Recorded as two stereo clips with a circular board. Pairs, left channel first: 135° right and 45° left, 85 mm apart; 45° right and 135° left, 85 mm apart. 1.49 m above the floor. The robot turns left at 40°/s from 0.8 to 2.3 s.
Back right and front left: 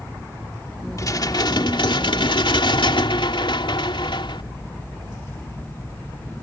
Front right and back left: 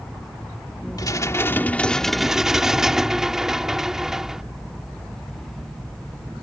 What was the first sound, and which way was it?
Dishes clattering, 85° right.